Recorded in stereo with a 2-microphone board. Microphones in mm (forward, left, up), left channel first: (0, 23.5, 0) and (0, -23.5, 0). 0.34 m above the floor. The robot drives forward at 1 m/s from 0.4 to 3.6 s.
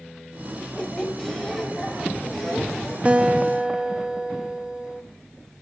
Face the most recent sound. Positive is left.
turn(degrees=-20)  # may be behind; listen again after turning